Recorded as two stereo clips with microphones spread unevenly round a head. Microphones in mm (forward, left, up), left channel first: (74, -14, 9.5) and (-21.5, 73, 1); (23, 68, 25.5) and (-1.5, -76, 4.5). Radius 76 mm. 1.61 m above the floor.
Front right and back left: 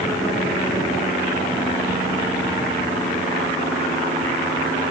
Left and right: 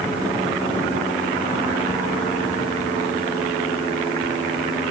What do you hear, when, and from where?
Only background noise.